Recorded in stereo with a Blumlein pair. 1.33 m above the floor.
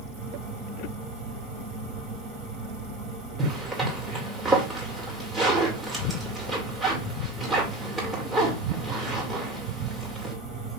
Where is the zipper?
10° right, 2.0 m.